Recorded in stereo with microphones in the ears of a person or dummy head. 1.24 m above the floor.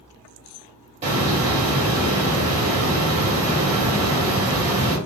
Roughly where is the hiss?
Right.